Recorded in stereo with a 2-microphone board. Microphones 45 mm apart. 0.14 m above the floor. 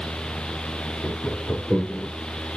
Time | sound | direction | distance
1.0 | laughter | 60° left (ahead or behind) | 3.5 m